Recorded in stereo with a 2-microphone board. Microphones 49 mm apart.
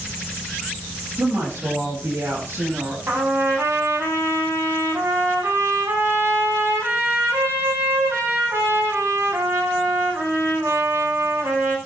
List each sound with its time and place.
1.2 s a woman speaking: 70° right (ahead or behind), 4.5 m; by 3.0 s 65° right (ahead or behind), 5.5 m
3.1 s a trumpet: 70° right (ahead or behind), 9 m